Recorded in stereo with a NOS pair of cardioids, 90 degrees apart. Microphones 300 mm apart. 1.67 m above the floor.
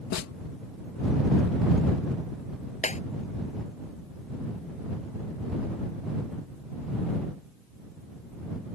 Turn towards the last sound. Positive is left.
turn(degrees=25)